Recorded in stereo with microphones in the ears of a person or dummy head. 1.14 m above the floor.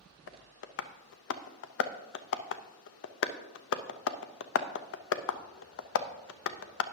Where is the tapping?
70° left (ahead or behind), 0.6 m.